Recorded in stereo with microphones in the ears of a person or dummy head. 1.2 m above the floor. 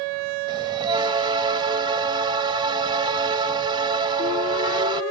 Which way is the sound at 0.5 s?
30° right (ahead or behind).